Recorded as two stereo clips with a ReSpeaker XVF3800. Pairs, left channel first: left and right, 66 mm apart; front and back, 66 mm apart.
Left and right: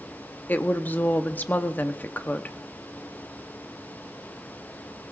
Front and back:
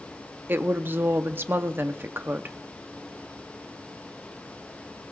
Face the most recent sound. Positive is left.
turn(degrees=140)